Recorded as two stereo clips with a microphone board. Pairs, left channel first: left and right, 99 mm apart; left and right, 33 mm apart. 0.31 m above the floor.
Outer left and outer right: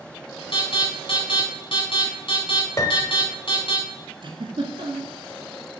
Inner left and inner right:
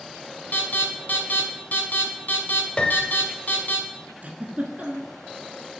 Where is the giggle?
55° right (ahead or behind), 1.3 m.